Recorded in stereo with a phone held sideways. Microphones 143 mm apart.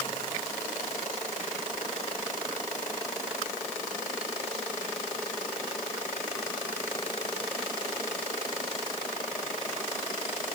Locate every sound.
Only background noise.